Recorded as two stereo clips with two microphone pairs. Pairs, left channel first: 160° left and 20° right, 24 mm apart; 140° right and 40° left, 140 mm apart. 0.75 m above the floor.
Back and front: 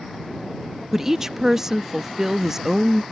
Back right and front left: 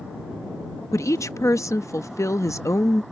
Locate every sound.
0.9 s a woman speaking: 90° right